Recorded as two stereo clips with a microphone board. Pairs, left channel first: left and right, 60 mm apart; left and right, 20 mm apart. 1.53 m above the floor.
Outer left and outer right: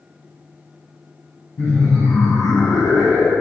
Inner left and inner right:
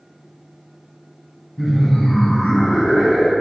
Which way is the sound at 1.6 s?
45° left (ahead or behind).